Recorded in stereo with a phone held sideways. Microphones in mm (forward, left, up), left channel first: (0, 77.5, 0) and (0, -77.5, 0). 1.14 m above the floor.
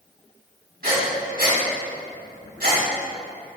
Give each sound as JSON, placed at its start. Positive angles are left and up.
{"t": 0.8, "sound": "breathing", "side_deg": -75, "distance_m": 2.5}